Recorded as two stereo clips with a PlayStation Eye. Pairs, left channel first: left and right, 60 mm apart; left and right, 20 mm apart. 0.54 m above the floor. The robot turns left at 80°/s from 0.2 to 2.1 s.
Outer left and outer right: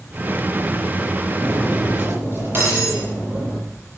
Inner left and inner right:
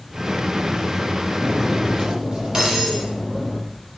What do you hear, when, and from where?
1.4 s cutlery clinking: 15° left, 9 m; by 3.6 s 40° right, 9 m